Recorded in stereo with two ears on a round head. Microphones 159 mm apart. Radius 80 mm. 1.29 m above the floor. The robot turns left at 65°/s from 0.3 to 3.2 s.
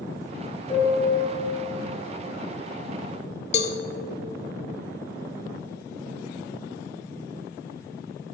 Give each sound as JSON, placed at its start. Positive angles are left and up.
{"t": 0.7, "sound": "a piano", "azimuth_deg": 30, "distance_m": 1.7}
{"t": 3.5, "sound": "a cowbell", "side_deg": 40, "distance_m": 0.7}